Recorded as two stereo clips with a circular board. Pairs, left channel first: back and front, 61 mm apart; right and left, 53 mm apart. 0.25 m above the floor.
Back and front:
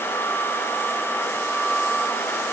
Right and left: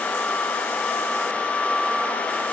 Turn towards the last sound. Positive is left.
No sound to turn to.